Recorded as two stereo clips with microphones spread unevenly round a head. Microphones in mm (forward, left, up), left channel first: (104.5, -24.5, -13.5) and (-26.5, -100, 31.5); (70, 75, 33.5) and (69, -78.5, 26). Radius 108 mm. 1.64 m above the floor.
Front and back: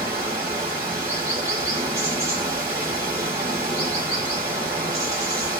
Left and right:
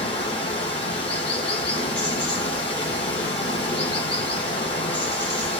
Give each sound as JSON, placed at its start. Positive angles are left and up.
{"t": 0.0, "sound": "running water", "azimuth_deg": 150, "distance_m": 0.8}